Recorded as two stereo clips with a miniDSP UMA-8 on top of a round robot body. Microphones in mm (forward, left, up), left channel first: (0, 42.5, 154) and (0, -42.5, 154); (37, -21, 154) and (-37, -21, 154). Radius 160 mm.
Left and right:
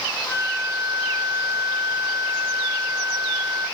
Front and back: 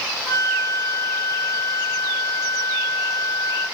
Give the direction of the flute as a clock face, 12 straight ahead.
3 o'clock.